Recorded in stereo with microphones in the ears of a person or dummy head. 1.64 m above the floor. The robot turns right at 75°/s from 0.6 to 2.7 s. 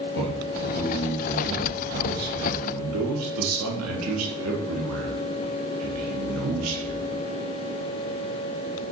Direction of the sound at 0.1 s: 115° left.